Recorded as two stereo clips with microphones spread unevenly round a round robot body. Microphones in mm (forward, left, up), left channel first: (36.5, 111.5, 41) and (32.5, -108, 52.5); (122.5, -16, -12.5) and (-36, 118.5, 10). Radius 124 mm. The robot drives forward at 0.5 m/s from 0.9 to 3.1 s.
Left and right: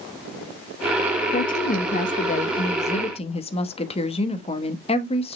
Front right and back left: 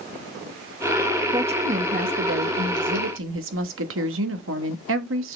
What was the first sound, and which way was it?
A woman speaking, 80° left.